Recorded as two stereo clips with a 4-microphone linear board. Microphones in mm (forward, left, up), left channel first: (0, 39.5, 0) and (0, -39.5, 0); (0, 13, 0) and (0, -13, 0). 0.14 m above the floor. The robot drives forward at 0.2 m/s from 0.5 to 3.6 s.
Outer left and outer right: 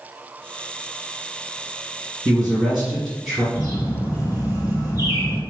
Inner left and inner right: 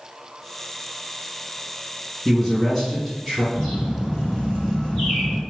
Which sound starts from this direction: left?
A bird, at 3.5 s.